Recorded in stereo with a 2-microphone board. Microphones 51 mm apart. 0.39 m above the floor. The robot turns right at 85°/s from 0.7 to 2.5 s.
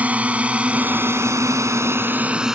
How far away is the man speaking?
No man speaking in this recording.